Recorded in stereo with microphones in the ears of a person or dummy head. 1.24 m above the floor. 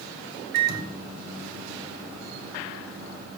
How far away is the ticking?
No ticking in this recording.